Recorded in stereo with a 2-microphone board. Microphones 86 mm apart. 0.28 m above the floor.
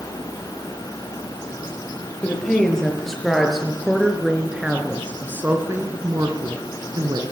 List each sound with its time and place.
2.2 s a woman speaking: 10° left (ahead or behind), 8 m; by 7.2 s 60° right (ahead or behind), 4 m